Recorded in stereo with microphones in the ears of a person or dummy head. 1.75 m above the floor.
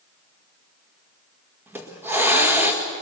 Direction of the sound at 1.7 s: 15° right (ahead or behind).